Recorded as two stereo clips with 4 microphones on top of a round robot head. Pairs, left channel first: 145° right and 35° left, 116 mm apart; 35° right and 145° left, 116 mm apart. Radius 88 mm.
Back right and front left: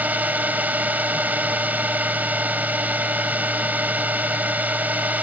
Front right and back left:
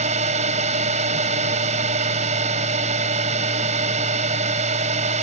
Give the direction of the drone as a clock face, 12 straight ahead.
8 o'clock.